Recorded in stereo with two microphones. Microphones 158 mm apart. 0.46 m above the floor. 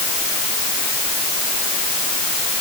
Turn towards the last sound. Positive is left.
No sound to turn to.